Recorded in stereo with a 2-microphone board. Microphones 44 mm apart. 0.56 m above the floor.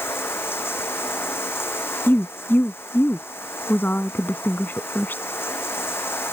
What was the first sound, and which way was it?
Running water, 60° left (ahead or behind).